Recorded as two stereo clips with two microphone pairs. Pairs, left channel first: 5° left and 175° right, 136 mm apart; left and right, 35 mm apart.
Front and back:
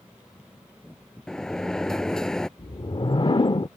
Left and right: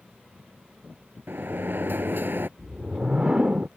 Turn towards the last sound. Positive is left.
turn(degrees=-35)